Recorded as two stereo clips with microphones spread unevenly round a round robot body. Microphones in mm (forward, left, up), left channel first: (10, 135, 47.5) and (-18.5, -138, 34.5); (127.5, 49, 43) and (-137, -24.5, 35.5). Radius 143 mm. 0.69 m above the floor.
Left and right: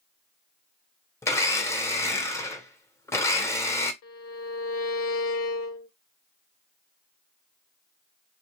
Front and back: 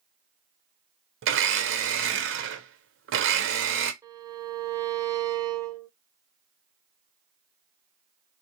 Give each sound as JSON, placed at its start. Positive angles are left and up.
{"t": 1.2, "sound": "a blender", "azimuth_deg": 165, "distance_m": 0.7}
{"t": 4.0, "sound": "a violin", "azimuth_deg": 120, "distance_m": 0.5}